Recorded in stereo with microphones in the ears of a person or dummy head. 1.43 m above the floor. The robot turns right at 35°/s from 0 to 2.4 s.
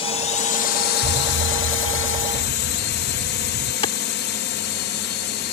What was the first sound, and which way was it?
A drone, 35° left.